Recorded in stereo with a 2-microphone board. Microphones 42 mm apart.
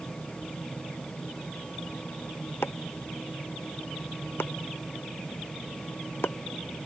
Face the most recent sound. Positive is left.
turn(degrees=90)